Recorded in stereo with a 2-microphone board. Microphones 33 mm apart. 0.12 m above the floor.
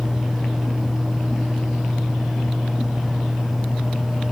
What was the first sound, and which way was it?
Only background noise.